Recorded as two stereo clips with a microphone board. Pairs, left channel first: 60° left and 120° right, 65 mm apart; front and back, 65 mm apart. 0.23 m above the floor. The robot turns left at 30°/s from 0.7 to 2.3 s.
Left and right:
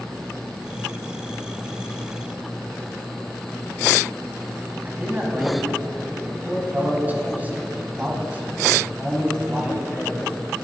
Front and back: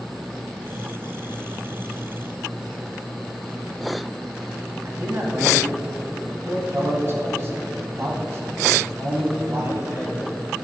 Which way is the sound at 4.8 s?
170° right.